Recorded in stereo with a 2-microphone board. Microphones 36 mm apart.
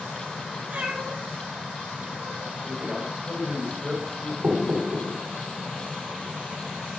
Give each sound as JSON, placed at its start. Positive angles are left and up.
{"t": 0.7, "sound": "a cat meowing", "side_deg": -55, "distance_m": 2.5}
{"t": 2.6, "sound": "a man speaking", "side_deg": -40, "distance_m": 5.0}
{"t": 4.4, "sound": "knocking", "side_deg": -85, "distance_m": 4.0}